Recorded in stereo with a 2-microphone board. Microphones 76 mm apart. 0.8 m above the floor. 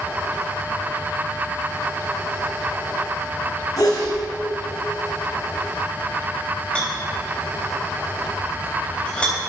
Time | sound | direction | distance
3.8 | a sneeze | 50° left (ahead or behind) | 5 m
6.8 | a rattle | 15° left (ahead or behind) | 4 m